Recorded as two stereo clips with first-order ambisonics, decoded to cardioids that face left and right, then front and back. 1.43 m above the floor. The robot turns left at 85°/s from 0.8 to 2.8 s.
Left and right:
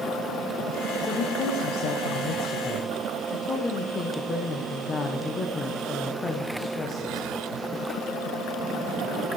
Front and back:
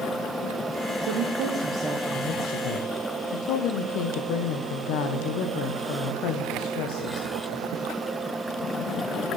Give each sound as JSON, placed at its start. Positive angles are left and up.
{"t": 1.0, "sound": "a woman speaking", "azimuth_deg": 175, "distance_m": 0.8}